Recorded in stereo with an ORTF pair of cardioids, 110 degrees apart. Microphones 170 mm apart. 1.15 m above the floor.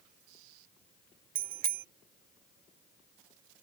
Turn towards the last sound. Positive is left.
turn(degrees=-55)